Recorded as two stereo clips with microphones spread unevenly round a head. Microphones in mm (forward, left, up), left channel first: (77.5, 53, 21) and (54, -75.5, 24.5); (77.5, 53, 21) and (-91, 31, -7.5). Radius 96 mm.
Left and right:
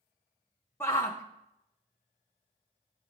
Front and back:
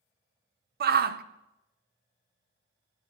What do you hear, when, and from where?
0.8 s a shout: 160° left, 0.9 m